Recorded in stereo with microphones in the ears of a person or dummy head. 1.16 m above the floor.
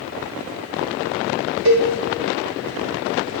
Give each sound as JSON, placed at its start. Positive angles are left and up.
{"t": 1.6, "sound": "a cowbell", "side_deg": -55, "distance_m": 0.9}